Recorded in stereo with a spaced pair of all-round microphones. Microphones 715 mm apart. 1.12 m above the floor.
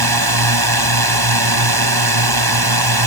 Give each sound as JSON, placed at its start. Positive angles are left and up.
{"t": 0.0, "sound": "a drone", "side_deg": -30}